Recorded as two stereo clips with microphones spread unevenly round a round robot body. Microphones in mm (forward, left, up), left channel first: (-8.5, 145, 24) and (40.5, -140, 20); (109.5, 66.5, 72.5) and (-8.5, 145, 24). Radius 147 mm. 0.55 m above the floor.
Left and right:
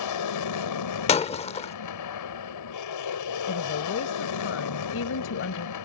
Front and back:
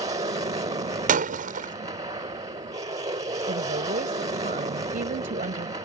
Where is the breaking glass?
170° left.